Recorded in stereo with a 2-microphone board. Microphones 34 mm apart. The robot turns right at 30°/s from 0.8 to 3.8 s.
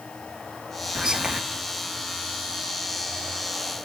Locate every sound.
0.9 s whispering: 25° right (ahead or behind), 0.6 m; by 1.4 s 30° right (ahead or behind), 0.6 m